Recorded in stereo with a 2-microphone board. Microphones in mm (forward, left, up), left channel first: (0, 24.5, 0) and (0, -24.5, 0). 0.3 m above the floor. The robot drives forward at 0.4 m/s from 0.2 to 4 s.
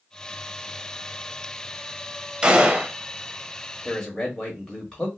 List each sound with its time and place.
2.4 s a gunshot: 20° right (ahead or behind), 0.6 m
3.9 s a man speaking: 15° left (ahead or behind), 1.1 m